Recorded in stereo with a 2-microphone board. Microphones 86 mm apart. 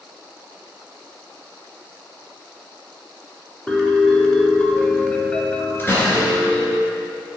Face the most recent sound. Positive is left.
turn(degrees=25)  # may be behind; listen again after turning